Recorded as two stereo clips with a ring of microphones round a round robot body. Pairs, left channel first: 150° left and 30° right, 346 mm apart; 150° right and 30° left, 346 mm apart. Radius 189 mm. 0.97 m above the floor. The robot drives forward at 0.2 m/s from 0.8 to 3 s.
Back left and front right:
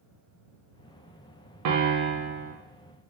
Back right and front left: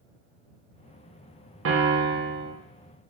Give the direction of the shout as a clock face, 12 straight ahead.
No shout in this recording.